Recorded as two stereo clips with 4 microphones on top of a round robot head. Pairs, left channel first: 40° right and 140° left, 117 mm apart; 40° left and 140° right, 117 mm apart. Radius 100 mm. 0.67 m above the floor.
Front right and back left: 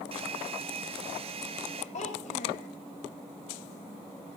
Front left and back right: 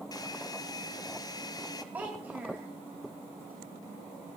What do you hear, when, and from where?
0.1 s a hair dryer: 100° left, 1.1 m
1.9 s a child speaking: 65° right, 2.5 m